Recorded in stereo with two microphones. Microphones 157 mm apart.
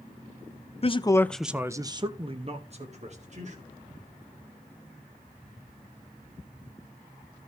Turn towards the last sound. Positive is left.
turn(degrees=-50)  # may be behind; listen again after turning